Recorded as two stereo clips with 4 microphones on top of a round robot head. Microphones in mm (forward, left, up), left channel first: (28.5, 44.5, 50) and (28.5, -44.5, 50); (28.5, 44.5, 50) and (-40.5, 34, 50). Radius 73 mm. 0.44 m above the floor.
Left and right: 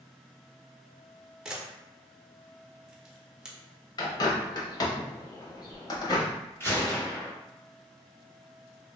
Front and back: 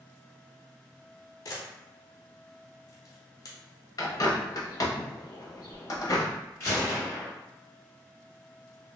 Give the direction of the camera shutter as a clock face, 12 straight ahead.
12 o'clock.